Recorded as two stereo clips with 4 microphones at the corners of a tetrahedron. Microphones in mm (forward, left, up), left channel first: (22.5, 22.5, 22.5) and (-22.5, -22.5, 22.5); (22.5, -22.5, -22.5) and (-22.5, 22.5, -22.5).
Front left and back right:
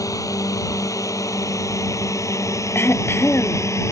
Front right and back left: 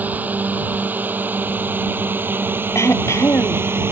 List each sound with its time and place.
0.0 s a drone: 70° left; by 3.9 s 85° left
2.8 s throat clearing: 5° right